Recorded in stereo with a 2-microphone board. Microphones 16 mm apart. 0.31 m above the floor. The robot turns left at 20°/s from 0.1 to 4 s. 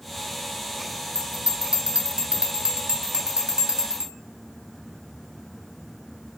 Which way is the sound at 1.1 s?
60° right (ahead or behind).